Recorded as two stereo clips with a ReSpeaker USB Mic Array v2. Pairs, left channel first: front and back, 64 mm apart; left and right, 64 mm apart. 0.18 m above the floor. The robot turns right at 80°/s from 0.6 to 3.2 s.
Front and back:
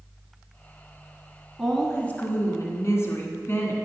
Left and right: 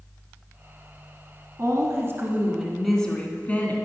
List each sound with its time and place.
1.6 s a woman speaking: 95° right, 1.5 m; by 3.8 s 30° left, 1.5 m